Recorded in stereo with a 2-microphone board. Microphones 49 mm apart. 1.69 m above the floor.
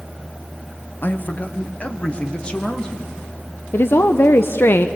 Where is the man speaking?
40° left (ahead or behind), 1.2 m; by 3.1 s 15° left (ahead or behind), 2 m.